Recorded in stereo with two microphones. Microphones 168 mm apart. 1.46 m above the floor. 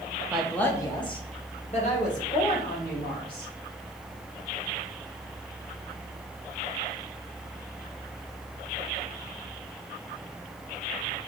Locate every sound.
0.3 s a woman speaking: 10° right (ahead or behind), 0.7 m; by 3.5 s 60° left (ahead or behind), 3 m